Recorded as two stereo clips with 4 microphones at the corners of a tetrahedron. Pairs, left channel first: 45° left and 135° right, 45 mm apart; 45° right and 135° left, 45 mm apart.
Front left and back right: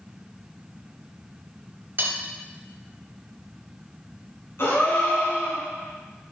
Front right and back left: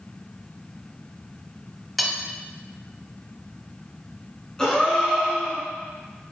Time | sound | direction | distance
2.0 | cutlery clinking | 130° right | 0.9 m
4.6 | a gasp | 30° left | 2.5 m